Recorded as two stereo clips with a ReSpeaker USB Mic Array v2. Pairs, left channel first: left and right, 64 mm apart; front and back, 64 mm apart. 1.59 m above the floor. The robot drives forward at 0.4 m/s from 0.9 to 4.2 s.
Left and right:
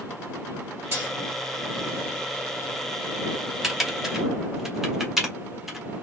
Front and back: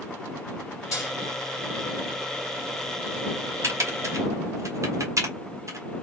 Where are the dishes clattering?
35° right, 3 m.